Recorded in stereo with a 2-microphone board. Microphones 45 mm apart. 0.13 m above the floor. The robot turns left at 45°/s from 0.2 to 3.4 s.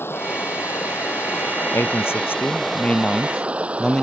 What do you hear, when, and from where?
0.0 s running water: 115° left; by 4.0 s 30° right
1.7 s a man speaking: 90° left; by 4.0 s 15° left